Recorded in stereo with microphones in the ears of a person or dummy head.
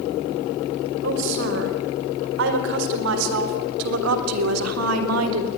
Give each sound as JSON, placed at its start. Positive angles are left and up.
{"t": 1.0, "sound": "a woman speaking", "side_deg": -60, "distance_m": 5.0}